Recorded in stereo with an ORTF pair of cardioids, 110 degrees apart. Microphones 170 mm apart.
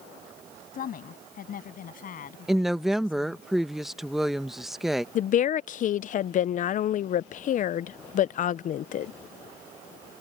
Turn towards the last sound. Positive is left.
turn(degrees=50)